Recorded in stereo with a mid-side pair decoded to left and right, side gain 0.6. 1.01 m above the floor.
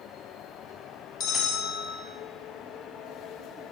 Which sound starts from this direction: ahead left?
A bell, at 1.2 s.